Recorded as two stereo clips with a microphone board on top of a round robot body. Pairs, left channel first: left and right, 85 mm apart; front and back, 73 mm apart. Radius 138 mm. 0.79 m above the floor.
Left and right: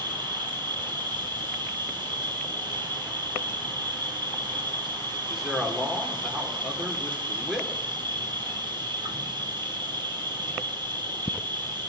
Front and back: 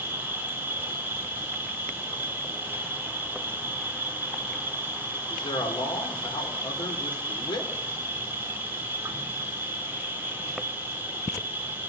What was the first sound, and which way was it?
An insect, 115° right.